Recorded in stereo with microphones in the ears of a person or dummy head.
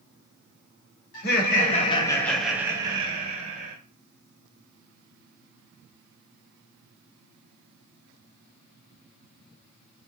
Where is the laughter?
60° left (ahead or behind), 0.9 m; by 3.8 s 40° right (ahead or behind), 1.2 m.